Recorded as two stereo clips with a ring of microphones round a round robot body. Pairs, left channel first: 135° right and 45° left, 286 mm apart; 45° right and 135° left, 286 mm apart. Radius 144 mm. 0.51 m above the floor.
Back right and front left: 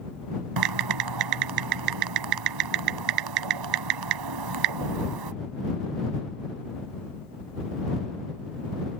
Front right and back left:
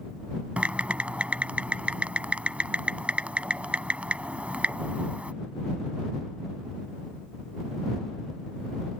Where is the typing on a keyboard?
50° left.